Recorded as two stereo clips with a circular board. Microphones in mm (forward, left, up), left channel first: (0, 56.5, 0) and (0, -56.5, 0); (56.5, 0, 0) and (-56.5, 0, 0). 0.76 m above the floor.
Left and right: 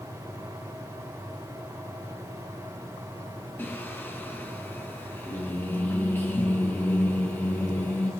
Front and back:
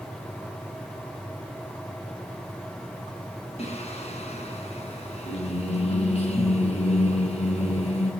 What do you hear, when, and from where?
3.6 s singing: 20° left, 5 m